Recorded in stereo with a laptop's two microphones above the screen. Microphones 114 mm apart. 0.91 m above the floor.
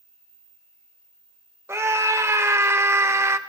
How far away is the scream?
About 1.0 m.